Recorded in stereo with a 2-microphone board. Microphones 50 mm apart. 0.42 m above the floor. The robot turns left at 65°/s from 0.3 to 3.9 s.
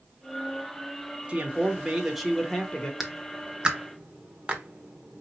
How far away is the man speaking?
About 0.9 m.